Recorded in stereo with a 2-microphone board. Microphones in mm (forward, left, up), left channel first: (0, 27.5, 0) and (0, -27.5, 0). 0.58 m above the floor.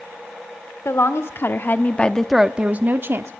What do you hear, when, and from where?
0.8 s a woman speaking: 60° left (ahead or behind), 1.5 m; by 3.3 s 50° right (ahead or behind), 1.2 m